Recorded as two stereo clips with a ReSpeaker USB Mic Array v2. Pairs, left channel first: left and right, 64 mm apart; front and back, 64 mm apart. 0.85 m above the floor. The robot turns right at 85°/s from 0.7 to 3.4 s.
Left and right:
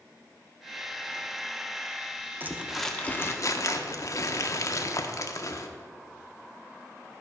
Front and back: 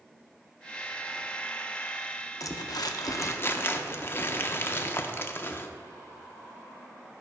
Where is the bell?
I don't hear a bell.